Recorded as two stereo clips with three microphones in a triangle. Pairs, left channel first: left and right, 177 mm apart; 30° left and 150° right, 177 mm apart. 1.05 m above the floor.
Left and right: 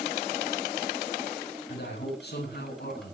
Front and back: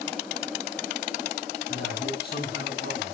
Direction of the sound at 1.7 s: 65° left.